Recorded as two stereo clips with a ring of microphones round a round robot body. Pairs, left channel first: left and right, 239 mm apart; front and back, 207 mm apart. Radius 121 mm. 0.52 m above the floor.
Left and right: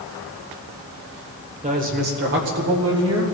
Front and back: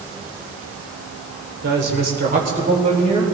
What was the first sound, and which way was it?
A woman speaking, 150° right.